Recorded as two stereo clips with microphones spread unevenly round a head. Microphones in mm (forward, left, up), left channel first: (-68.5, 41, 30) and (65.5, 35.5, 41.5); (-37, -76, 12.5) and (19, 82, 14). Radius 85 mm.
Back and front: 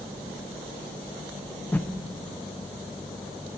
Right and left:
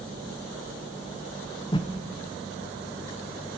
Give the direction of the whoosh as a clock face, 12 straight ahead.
4 o'clock.